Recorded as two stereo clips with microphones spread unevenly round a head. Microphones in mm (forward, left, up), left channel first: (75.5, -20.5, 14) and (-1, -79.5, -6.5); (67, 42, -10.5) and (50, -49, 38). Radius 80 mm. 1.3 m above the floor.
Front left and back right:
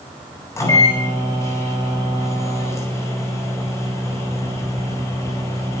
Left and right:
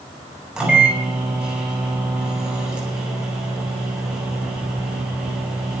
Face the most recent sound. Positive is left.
turn(degrees=-20)